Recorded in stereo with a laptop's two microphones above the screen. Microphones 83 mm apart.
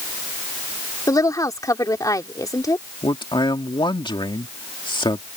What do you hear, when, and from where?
1.1 s a woman speaking: 45° left (ahead or behind)
3.0 s a man speaking: 70° left (ahead or behind)